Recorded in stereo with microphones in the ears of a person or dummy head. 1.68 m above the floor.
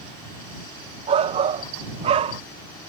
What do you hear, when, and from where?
1.1 s a shout: 30° right (ahead or behind)